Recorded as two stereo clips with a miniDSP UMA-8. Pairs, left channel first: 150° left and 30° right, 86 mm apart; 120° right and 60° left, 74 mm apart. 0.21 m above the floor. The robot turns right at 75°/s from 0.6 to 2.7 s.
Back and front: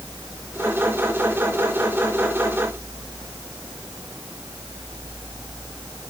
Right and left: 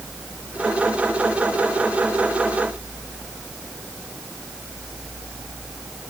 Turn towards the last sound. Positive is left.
No sound to turn to.